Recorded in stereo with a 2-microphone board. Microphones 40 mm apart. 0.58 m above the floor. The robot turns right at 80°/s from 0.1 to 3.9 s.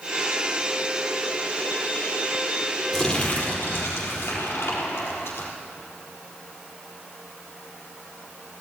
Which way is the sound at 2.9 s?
5° left.